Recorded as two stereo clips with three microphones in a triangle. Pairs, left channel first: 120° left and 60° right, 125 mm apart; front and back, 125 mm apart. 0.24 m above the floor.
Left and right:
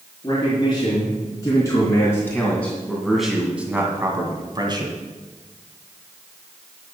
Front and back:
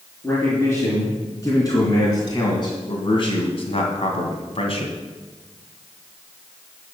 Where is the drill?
No drill in this recording.